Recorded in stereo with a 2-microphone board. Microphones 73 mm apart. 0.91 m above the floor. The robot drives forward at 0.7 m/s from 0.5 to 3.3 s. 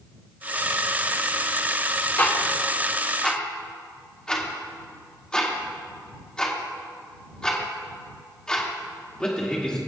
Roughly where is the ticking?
Left.